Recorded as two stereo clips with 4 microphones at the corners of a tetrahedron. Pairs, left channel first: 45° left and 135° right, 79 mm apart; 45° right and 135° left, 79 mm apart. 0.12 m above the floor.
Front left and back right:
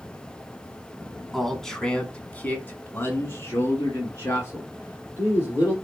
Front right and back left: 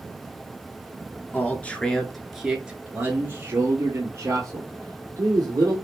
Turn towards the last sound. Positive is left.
turn(degrees=95)